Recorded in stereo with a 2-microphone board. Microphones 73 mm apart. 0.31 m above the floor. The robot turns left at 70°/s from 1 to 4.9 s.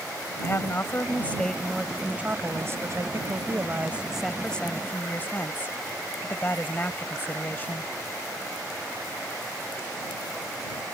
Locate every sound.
0.4 s a woman speaking: 50° left; by 7.9 s 140° left